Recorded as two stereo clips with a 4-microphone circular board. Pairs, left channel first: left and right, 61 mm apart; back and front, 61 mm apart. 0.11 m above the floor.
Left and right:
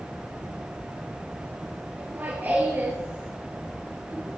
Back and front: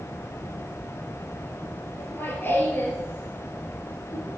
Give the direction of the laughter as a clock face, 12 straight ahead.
5 o'clock.